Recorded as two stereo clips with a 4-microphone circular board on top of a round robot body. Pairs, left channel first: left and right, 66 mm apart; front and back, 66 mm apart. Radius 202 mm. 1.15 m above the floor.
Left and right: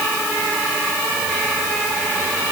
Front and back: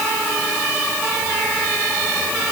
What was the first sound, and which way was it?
Only background noise.